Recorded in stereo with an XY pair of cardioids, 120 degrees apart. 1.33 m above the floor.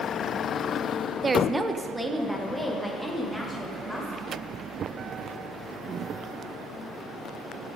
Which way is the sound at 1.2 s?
30° right.